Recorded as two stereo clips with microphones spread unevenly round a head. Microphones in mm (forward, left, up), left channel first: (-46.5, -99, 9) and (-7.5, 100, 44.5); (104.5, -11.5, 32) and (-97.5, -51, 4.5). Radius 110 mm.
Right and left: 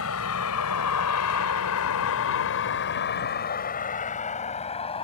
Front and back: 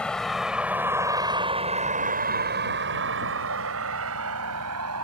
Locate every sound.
0.0 s a vehicle: 70° right; by 5.0 s 165° right